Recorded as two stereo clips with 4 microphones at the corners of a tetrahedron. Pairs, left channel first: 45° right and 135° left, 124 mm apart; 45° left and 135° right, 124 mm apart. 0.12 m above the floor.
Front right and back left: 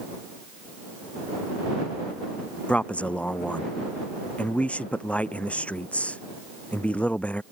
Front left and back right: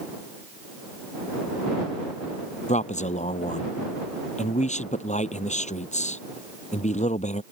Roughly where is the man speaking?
Ahead left.